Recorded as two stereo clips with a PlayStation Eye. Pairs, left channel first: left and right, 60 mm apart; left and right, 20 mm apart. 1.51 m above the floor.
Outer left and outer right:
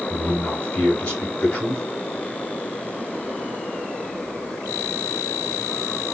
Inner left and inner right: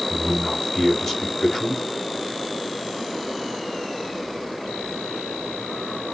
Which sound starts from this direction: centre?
A man speaking, at 0.1 s.